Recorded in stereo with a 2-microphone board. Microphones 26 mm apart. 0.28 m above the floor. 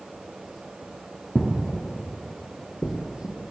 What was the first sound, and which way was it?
Footsteps, 10° right (ahead or behind).